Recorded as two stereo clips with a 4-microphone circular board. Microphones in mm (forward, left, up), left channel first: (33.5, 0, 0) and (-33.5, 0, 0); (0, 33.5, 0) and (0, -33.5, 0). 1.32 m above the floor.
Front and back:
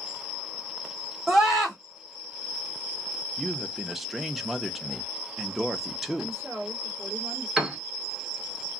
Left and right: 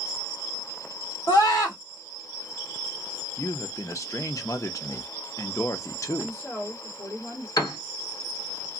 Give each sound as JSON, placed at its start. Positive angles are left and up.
{"t": 1.3, "sound": "a scream", "azimuth_deg": 100, "distance_m": 1.3}
{"t": 3.4, "sound": "a man speaking", "azimuth_deg": 95, "distance_m": 0.6}
{"t": 6.2, "sound": "a woman speaking", "azimuth_deg": 140, "distance_m": 1.7}
{"t": 7.6, "sound": "a piano", "azimuth_deg": 95, "distance_m": 1.2}